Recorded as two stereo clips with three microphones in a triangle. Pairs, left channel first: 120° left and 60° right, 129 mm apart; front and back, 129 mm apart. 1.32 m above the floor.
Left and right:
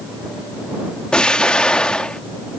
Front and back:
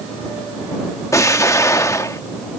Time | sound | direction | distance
1.1 | an explosion | 45° left | ?